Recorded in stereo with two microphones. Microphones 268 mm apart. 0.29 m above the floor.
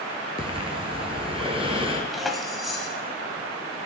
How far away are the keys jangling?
About 1.2 m.